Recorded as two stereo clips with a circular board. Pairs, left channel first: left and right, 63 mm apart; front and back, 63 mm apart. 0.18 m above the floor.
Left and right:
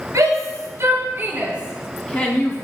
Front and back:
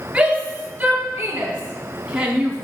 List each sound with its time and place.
0.1 s a shout: 105° right, 2.5 m; by 2.6 s 105° left, 1.6 m